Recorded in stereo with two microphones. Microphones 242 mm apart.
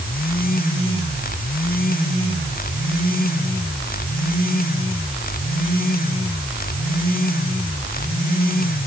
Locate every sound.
Only background noise.